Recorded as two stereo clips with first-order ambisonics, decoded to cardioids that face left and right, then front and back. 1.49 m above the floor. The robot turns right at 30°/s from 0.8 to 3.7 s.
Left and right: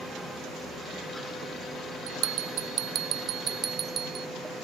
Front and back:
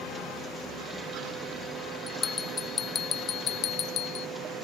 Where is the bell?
80° right; by 4.3 s 30° right.